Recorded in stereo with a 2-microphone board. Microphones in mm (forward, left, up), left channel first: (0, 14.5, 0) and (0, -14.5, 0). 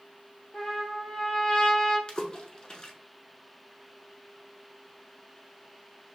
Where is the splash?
30° left (ahead or behind), 0.7 m.